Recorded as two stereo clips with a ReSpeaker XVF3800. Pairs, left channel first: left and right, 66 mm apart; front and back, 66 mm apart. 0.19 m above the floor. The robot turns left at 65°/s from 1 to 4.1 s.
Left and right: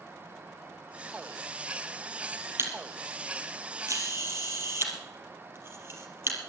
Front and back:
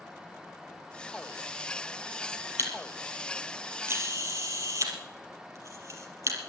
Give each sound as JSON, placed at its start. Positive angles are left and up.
{"t": 2.6, "sound": "a camera shutter", "azimuth_deg": -45, "distance_m": 3.0}